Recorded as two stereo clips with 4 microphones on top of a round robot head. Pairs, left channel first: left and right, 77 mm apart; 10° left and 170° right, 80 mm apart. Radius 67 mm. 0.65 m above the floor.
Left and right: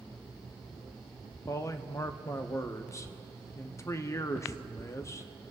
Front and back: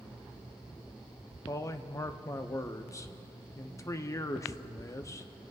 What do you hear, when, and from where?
1.5 s a man speaking: 50° left, 0.9 m